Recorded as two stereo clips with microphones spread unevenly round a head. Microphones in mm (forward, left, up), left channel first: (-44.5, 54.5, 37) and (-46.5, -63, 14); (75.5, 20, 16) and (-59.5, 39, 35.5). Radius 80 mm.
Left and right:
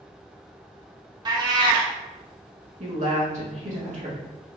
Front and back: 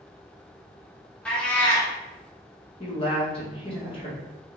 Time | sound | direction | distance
1.2 | a cat meowing | 100° right | 0.7 m
2.8 | a woman speaking | 60° right | 1.3 m